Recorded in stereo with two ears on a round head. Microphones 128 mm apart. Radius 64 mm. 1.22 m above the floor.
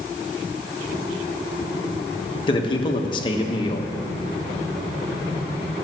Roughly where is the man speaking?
Left.